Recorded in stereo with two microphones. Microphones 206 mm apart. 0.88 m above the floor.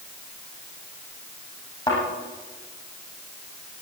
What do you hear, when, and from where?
1.9 s a thud: 25° left (ahead or behind), 9.5 m